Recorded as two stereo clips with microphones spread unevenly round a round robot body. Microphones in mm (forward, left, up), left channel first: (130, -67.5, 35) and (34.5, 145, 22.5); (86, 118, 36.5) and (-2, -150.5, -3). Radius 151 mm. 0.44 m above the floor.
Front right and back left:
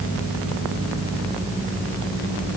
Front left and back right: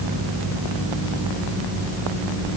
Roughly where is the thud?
I don't hear a thud.